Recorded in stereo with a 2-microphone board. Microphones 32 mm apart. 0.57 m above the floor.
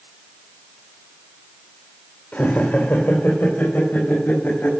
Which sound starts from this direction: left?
Laughter, at 2.3 s.